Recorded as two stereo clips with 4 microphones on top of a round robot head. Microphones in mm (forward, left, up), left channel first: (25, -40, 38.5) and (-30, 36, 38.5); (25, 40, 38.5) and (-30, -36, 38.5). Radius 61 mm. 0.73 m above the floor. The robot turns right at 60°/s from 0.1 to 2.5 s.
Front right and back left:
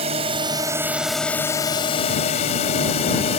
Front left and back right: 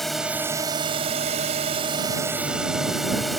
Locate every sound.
0.0 s a drone: 140° left; by 3.4 s 35° right